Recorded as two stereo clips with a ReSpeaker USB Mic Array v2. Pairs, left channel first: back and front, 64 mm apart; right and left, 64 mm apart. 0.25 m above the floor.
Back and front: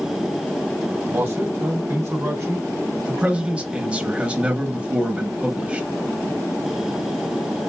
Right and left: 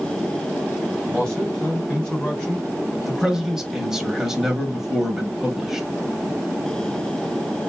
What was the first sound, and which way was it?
A man speaking, 15° right.